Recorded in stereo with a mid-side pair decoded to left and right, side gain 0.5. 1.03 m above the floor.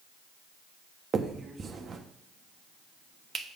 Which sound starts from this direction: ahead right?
A finger snap, at 1.1 s.